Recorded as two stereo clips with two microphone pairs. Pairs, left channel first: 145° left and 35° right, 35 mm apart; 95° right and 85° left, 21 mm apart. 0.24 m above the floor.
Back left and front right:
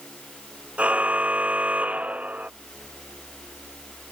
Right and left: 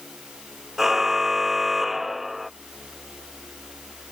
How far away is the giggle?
I don't hear a giggle.